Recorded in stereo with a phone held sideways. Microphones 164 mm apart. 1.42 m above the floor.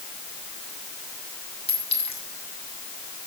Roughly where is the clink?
Left.